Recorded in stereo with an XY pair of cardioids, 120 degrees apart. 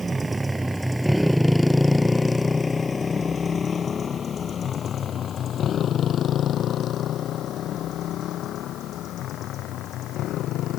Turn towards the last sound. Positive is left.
turn(degrees=70)